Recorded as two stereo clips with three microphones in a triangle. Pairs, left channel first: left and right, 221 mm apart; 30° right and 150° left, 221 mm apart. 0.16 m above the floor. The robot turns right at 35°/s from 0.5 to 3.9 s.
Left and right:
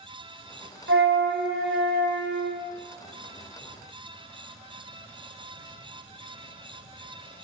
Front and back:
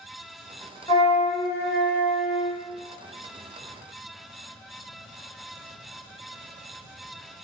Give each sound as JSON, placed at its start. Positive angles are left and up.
{"t": 0.9, "sound": "a flute", "azimuth_deg": -100, "distance_m": 0.6}